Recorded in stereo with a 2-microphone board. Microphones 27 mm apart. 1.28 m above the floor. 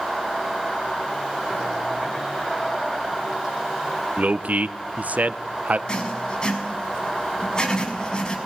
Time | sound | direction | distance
4.2 | a man speaking | 70° right (ahead or behind) | 0.9 m
5.9 | writing | 30° left (ahead or behind) | 5 m